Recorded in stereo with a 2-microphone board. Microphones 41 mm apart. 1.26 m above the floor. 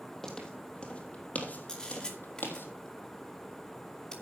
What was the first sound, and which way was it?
Footsteps, 10° left (ahead or behind).